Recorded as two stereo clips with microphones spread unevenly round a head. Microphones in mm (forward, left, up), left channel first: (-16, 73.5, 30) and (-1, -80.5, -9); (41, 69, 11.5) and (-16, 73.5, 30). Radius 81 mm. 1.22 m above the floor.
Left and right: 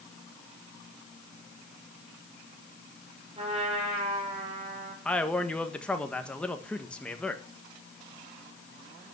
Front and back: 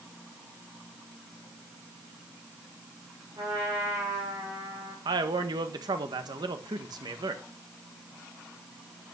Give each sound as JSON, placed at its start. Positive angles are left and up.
{"t": 3.4, "sound": "a trumpet", "azimuth_deg": -140, "distance_m": 5.5}
{"t": 5.0, "sound": "a man speaking", "azimuth_deg": -175, "distance_m": 1.6}